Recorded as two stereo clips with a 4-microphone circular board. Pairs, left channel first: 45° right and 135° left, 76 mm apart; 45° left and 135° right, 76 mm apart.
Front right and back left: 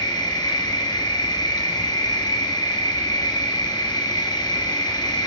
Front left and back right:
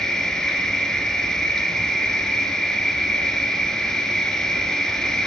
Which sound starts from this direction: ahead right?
An insect, at 0.0 s.